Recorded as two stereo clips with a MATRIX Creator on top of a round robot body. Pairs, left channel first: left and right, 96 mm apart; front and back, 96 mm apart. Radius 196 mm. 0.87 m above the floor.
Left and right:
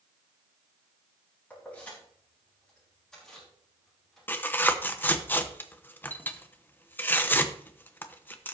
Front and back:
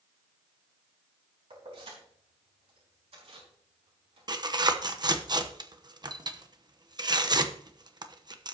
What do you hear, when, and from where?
1.5 s keys jangling: 165° left, 4.5 m; by 5.1 s straight behind, 7 m
4.3 s tearing paper: 155° left, 1.2 m